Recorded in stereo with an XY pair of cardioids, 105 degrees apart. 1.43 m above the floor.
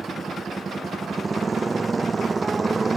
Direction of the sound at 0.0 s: 20° right.